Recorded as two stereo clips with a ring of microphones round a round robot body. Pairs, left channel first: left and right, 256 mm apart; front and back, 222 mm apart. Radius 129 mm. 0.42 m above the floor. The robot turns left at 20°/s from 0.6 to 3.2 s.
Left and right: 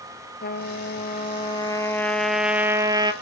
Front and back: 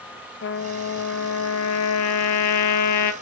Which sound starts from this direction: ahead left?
A trumpet, at 0.4 s.